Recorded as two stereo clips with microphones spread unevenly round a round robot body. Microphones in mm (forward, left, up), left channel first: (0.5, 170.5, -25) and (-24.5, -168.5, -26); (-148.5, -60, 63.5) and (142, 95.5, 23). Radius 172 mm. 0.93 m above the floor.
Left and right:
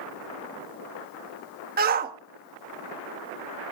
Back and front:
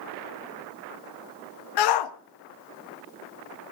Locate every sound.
1.8 s a shout: 160° right, 1.4 m